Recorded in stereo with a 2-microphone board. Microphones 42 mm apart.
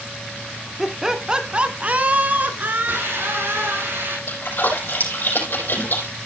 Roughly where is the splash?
Left.